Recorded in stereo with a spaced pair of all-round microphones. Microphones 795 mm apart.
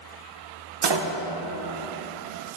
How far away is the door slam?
About 0.5 m.